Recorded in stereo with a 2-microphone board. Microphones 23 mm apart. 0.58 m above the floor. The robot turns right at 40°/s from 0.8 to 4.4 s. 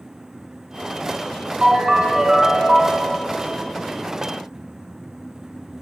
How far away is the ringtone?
About 1.5 m.